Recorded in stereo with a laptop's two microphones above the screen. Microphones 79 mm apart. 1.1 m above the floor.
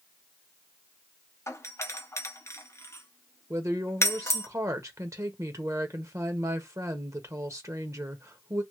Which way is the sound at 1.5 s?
35° left (ahead or behind).